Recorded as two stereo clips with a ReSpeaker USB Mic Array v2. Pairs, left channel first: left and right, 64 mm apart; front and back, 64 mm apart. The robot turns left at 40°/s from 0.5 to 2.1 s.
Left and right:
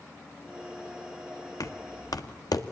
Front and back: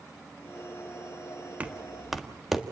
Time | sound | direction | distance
1.6 | knocking | 115° left | 1.6 m